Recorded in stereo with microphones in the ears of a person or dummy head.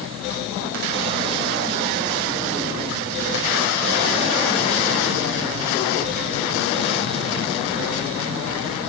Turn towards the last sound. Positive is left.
No sound to turn to.